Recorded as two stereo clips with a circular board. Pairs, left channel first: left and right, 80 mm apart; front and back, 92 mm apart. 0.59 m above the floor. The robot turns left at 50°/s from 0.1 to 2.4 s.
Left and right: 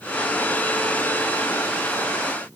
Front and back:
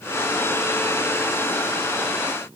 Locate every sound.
Only background noise.